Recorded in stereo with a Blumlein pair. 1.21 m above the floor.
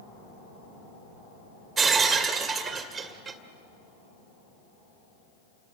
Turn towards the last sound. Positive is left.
turn(degrees=-15)